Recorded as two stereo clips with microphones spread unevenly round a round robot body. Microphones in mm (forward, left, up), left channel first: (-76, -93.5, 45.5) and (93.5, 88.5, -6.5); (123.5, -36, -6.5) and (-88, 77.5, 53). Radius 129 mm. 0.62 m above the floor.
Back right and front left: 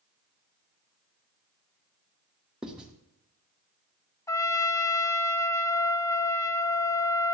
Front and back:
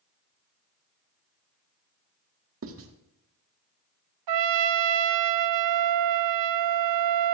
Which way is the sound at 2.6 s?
125° left.